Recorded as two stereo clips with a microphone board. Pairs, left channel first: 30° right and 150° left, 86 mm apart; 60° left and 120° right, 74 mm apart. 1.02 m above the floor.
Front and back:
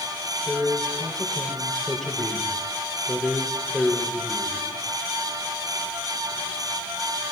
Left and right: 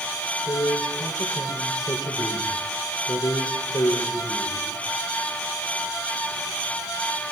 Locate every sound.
0.5 s a man speaking: 55° left, 4.5 m